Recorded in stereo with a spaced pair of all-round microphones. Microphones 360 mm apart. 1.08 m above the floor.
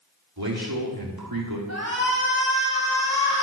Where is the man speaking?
80° right, 3 m.